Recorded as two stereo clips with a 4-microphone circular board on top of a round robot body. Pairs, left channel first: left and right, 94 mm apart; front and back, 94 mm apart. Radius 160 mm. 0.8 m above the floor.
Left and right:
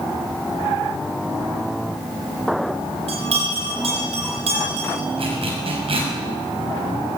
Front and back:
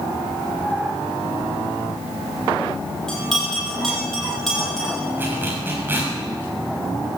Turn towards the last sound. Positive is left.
turn(degrees=-110)